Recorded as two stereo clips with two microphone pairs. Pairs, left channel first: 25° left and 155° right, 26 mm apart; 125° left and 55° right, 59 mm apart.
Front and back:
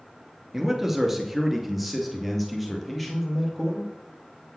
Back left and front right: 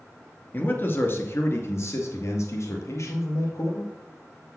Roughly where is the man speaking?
Behind left.